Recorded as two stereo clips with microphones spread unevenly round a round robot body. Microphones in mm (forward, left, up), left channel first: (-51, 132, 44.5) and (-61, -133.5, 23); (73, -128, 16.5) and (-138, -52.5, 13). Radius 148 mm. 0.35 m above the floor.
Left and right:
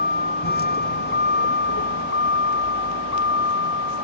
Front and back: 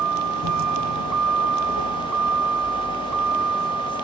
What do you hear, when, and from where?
0.0 s a vehicle: 145° left; by 4.0 s 130° left